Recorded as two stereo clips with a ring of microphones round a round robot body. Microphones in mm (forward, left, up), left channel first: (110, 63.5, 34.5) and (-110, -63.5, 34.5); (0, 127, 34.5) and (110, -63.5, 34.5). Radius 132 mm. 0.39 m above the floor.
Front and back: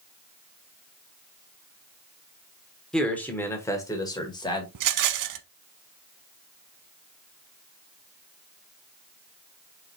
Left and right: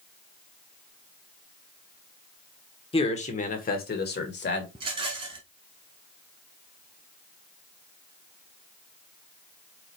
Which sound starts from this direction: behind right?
A rattle, at 4.8 s.